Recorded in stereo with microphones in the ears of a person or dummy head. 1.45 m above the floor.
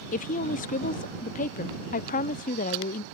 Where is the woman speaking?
45° left (ahead or behind).